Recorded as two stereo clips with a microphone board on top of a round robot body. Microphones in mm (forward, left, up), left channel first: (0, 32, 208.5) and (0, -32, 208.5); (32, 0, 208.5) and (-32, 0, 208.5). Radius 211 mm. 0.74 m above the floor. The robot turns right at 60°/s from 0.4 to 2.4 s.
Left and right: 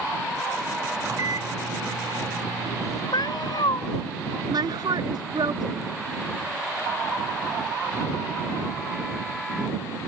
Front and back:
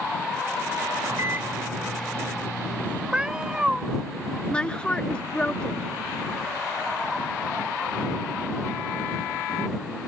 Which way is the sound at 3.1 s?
100° left.